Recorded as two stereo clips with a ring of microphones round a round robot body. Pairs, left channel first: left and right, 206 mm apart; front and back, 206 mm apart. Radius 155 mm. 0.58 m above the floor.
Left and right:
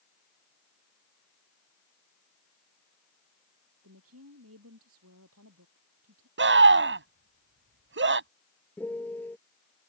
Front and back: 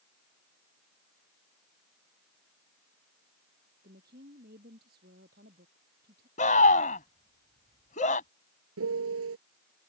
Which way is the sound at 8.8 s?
175° left.